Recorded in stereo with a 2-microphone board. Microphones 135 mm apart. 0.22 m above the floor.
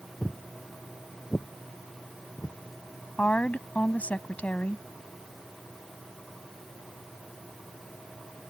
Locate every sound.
0.2 s footsteps: 5° left (ahead or behind); by 2.6 s 20° left (ahead or behind)
3.2 s a woman speaking: 10° left (ahead or behind)